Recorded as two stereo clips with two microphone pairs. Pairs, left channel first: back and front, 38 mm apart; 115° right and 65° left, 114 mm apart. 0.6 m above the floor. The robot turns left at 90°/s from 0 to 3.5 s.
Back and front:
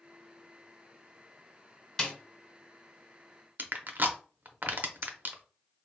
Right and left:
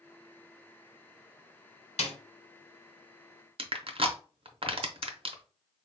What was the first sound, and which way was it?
A snare drum, 110° right.